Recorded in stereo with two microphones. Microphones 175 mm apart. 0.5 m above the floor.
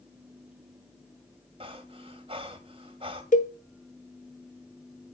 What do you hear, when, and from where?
1.6 s breathing: 30° right (ahead or behind), 1.8 m
3.3 s a cowbell: 45° left (ahead or behind), 1.2 m